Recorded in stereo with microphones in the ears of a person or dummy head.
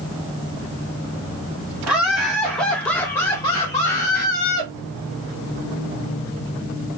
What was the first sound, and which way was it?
Laughter, 10° right (ahead or behind).